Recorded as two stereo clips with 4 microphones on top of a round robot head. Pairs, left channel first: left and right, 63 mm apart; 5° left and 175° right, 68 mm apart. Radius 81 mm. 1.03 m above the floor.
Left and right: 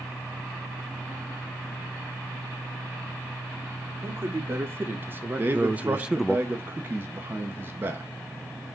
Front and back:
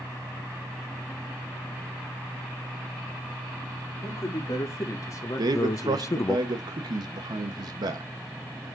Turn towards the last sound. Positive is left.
turn(degrees=-150)